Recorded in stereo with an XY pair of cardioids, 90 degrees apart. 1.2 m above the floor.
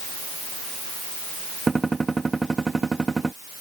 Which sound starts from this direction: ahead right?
A gunshot, at 1.7 s.